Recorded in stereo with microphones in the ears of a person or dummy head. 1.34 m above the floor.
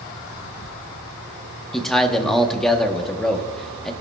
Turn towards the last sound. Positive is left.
turn(degrees=5)  # may be behind; listen again after turning